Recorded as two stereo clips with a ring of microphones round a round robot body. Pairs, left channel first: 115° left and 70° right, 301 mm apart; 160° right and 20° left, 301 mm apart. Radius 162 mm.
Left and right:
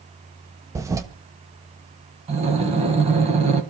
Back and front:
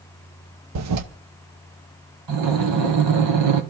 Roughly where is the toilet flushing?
Ahead.